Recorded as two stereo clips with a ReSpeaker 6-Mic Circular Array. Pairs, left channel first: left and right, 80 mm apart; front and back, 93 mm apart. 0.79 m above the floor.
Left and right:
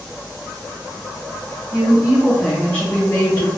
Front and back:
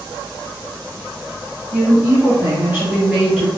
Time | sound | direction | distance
1.7 | a woman speaking | 130° right | 1.0 m